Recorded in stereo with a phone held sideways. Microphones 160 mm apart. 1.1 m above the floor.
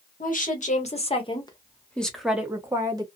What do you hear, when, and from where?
0.2 s a woman speaking: 60° left (ahead or behind), 1.2 m; by 3.0 s 25° right (ahead or behind), 1.1 m